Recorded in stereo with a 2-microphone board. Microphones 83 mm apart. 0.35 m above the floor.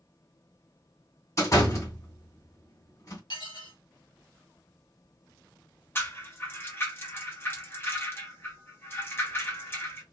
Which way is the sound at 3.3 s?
70° left (ahead or behind).